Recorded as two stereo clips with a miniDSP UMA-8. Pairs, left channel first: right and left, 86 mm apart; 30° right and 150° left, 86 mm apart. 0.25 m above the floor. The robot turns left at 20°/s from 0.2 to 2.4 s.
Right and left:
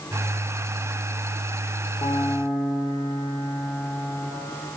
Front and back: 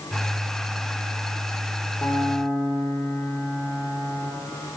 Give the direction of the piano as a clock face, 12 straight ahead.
3 o'clock.